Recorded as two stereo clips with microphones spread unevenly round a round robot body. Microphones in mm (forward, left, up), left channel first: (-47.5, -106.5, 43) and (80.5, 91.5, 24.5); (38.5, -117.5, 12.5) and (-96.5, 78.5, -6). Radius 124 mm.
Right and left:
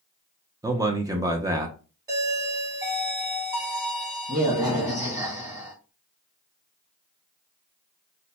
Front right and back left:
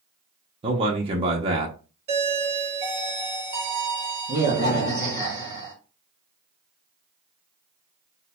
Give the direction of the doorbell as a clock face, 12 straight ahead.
8 o'clock.